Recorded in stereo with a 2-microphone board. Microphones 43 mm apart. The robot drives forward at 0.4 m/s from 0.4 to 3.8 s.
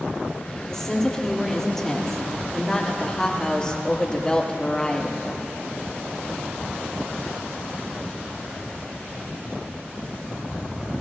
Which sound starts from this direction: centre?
A woman speaking, at 0.7 s.